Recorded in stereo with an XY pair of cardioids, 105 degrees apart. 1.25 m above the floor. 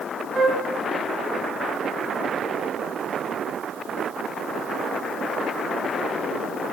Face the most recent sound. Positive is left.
turn(degrees=-40)